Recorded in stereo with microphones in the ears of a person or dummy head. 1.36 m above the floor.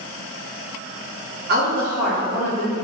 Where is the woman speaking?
50° right (ahead or behind), 0.7 m; by 2.7 s 30° left (ahead or behind), 1.1 m.